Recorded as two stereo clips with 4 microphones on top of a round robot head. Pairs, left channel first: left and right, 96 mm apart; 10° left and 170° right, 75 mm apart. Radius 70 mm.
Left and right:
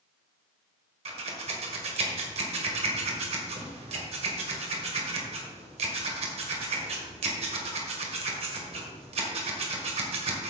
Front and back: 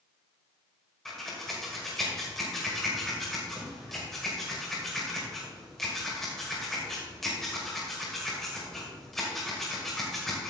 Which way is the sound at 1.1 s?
80° right.